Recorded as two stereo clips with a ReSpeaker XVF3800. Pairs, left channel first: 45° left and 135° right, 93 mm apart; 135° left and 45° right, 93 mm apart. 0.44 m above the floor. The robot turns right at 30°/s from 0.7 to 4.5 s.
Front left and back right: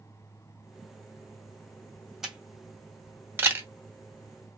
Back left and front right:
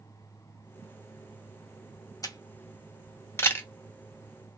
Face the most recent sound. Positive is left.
turn(degrees=-150)